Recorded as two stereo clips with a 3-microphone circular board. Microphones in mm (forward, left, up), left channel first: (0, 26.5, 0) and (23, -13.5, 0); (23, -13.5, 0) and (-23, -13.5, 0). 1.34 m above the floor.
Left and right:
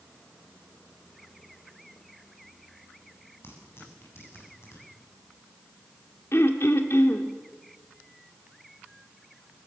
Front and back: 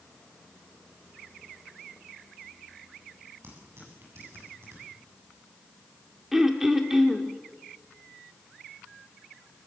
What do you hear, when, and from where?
3.4 s tearing paper: 155° left, 8 m
6.3 s throat clearing: 100° left, 1.7 m